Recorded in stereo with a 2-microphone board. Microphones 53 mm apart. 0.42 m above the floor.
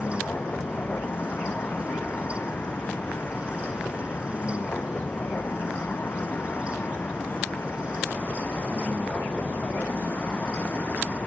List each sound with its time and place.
0.0 s a vehicle: 35° left (ahead or behind)